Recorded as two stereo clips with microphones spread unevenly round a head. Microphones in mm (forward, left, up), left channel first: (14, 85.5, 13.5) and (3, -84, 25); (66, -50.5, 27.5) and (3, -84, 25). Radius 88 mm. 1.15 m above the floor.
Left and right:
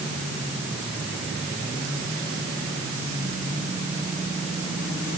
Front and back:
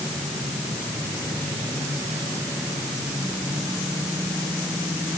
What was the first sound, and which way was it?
Only background noise.